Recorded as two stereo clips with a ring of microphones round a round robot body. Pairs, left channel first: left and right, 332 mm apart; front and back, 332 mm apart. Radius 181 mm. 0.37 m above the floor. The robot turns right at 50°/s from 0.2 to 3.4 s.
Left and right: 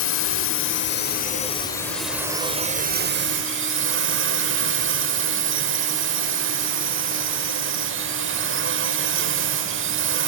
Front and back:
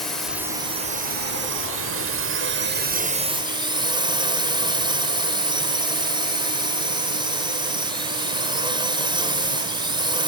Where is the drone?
90° left; by 10.3 s 110° right.